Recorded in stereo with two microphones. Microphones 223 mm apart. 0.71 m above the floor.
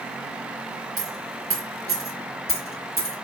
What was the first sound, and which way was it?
A dropped coin, 70° right (ahead or behind).